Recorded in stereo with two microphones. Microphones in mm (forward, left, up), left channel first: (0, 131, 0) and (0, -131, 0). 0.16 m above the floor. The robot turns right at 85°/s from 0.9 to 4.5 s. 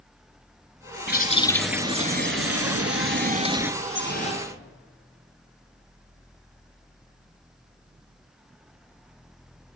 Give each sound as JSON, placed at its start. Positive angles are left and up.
{"t": 1.1, "sound": "a bird", "azimuth_deg": 130, "distance_m": 0.9}
{"t": 3.8, "sound": "dripping", "azimuth_deg": 115, "distance_m": 3.0}